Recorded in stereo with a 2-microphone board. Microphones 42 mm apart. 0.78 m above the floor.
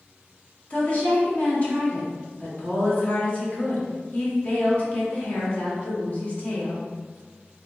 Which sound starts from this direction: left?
A woman speaking, at 0.7 s.